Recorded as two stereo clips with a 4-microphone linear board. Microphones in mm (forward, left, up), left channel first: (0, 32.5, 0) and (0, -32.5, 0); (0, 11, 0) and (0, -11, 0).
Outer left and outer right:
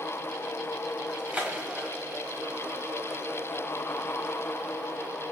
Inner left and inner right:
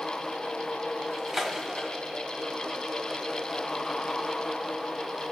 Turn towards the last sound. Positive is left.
turn(degrees=-20)  # may be behind; listen again after turning